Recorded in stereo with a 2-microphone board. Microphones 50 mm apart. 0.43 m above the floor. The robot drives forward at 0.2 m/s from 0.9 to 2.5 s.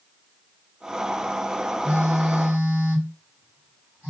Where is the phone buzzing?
25° right (ahead or behind), 1.9 m.